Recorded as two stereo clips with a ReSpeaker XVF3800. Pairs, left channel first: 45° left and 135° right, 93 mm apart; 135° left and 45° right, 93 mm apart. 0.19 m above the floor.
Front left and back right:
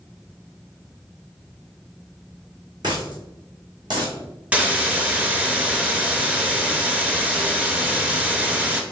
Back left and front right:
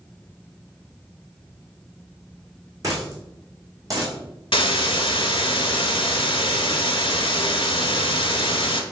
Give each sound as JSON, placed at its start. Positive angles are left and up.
{"t": 2.8, "sound": "a dropped coin", "azimuth_deg": -95, "distance_m": 1.8}
{"t": 4.5, "sound": "a hiss", "azimuth_deg": 150, "distance_m": 0.7}